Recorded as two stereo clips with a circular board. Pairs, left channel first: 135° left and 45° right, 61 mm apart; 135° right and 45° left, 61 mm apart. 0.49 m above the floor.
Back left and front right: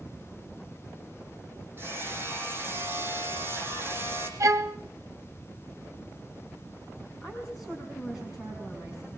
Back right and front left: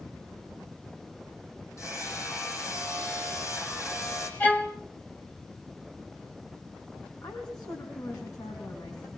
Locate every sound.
1.8 s hammering: 100° right, 5 m
4.4 s a violin: 70° right, 1.7 m
7.2 s a woman speaking: 130° right, 5 m